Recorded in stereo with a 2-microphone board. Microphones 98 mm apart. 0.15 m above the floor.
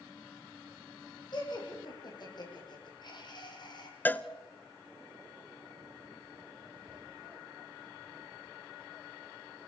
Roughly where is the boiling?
No boiling in this recording.